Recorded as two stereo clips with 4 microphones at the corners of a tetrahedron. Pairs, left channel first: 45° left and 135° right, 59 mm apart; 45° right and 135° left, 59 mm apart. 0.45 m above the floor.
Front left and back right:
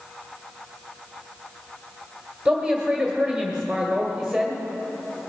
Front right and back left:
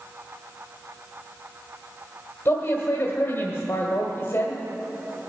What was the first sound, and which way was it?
A man speaking, 50° right.